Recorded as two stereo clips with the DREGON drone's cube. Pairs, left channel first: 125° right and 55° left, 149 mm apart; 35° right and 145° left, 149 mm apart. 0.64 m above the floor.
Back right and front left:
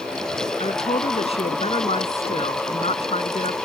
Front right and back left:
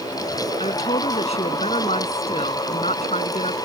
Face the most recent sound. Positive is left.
turn(degrees=-80)